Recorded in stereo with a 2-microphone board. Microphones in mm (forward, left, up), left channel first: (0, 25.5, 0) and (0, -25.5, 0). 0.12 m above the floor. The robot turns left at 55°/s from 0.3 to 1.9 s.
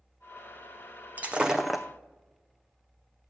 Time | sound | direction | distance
1.2 | breaking glass | 150° right | 0.6 m